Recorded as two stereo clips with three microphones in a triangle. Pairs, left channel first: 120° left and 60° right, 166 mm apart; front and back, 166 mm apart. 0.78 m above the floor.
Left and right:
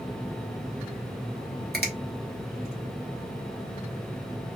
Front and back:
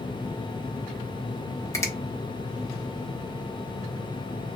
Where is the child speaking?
I don't hear a child speaking.